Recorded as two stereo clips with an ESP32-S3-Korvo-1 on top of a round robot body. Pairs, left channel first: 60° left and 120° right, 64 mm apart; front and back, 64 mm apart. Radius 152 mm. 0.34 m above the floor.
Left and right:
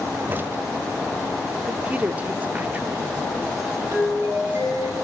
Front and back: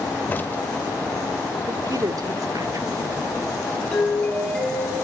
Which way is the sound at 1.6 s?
175° left.